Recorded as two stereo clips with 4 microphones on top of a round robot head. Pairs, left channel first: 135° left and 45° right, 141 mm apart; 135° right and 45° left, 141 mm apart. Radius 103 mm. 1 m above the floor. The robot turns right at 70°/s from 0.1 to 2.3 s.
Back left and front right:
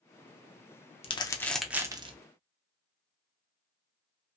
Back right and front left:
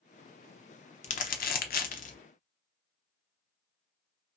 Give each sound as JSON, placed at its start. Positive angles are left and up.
{"t": 1.0, "sound": "crumpling", "azimuth_deg": -175, "distance_m": 0.6}